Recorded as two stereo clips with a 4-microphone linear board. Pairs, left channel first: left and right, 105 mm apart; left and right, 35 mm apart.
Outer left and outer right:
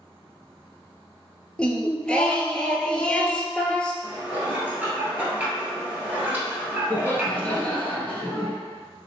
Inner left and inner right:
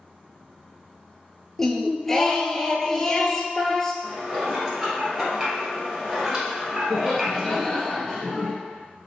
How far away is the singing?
About 0.5 m.